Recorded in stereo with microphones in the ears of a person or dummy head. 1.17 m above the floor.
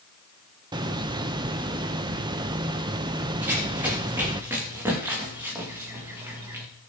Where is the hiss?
25° right (ahead or behind), 0.8 m.